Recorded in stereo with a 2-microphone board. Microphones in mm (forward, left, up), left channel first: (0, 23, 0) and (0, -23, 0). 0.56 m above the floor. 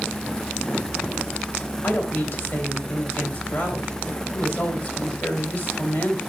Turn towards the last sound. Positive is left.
turn(degrees=50)  # may be behind; listen again after turning